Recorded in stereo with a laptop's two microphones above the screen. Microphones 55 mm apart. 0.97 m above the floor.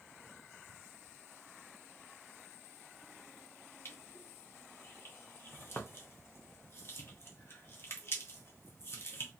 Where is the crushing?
50° left (ahead or behind), 0.7 m.